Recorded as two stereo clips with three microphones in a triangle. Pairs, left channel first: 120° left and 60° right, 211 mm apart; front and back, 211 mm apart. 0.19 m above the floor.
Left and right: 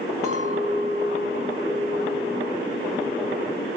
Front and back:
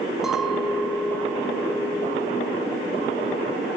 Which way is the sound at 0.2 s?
95° right.